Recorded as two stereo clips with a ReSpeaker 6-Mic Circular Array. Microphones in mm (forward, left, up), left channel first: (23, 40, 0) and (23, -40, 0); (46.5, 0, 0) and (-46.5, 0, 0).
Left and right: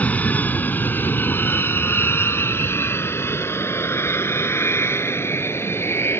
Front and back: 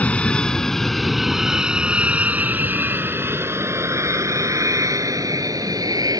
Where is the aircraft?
55° left; by 6.2 s 145° left.